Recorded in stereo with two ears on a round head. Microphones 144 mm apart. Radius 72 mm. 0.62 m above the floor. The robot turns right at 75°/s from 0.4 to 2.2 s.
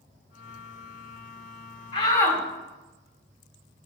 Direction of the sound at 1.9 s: 40° left (ahead or behind).